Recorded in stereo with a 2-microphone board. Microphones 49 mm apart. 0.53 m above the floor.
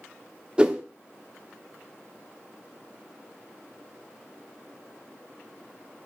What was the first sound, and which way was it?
A whoosh, 20° right (ahead or behind).